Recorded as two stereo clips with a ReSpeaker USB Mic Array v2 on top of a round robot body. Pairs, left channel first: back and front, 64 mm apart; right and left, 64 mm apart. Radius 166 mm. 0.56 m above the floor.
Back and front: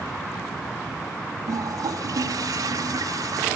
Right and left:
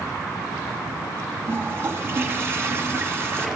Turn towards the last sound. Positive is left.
turn(degrees=35)